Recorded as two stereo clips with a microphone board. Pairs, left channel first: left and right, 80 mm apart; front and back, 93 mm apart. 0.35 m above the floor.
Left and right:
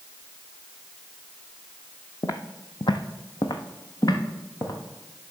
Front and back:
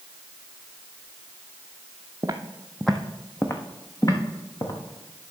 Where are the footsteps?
130° left, 0.9 m; by 4.7 s 40° left, 2 m.